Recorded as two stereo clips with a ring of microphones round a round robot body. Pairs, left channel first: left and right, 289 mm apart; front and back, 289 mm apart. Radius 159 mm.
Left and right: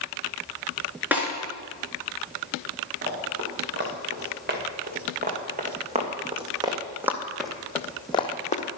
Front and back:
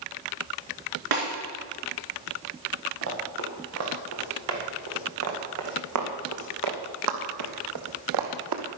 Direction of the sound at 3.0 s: 140° right.